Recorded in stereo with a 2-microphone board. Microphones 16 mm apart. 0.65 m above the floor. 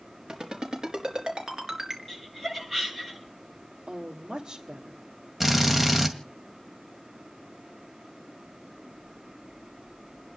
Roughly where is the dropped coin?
No dropped coin in this recording.